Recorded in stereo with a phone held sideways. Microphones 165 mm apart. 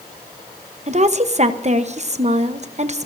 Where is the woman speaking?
45° right (ahead or behind), 0.9 m.